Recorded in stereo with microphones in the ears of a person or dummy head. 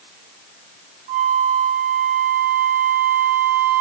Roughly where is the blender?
I don't hear a blender.